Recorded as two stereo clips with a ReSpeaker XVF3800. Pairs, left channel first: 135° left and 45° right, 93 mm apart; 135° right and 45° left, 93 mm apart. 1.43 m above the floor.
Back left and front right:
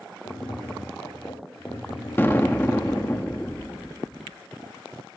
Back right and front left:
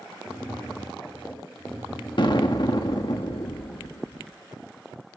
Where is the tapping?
155° left, 4 m.